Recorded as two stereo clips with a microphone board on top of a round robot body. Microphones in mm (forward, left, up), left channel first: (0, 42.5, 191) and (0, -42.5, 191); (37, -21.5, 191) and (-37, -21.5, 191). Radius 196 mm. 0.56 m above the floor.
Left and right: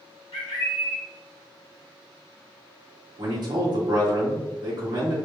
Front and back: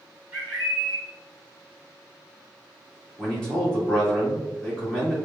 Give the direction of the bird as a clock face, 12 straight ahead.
8 o'clock.